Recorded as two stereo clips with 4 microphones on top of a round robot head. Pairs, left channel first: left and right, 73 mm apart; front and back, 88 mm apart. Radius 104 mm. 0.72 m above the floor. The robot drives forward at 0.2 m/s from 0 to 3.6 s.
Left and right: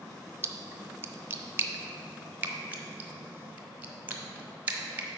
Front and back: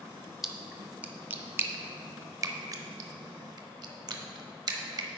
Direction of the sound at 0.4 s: 95° right.